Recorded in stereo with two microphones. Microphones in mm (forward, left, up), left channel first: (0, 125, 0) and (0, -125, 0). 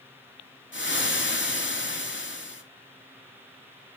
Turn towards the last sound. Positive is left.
turn(degrees=50)  # may be behind; listen again after turning